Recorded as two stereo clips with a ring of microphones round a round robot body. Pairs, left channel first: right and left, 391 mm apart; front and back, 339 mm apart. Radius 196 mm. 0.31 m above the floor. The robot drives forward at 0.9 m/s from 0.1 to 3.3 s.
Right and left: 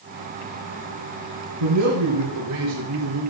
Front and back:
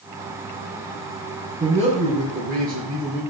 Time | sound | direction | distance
1.6 | a man speaking | 115° left | 4 m